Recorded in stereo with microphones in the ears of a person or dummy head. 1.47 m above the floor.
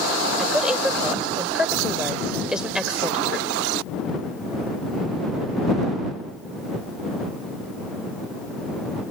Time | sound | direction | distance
0.4 | a woman speaking | 5° right (ahead or behind) | ?